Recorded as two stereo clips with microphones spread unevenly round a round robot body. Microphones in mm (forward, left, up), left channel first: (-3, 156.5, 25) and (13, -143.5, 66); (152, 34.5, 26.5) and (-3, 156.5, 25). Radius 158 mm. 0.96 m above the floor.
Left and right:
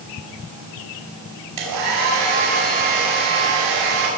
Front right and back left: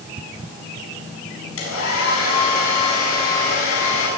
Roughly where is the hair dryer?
Ahead right.